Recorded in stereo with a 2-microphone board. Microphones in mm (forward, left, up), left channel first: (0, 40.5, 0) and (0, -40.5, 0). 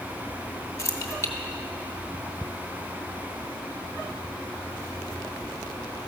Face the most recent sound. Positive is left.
turn(degrees=35)  # may be behind; listen again after turning